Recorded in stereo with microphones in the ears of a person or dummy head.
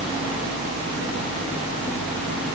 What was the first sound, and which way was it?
Only background noise.